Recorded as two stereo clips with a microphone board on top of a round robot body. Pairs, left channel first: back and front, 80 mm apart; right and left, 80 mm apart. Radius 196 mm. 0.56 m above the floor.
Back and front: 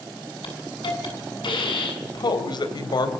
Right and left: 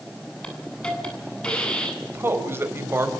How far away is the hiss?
About 8.5 m.